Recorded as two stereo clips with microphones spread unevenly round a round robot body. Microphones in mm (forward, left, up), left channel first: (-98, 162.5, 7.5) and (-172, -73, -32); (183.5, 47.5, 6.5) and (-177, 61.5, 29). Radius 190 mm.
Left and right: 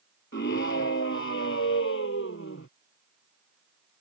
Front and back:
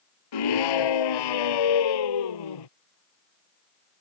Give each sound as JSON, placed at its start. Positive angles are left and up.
{"t": 0.3, "sound": "a scream", "azimuth_deg": 10}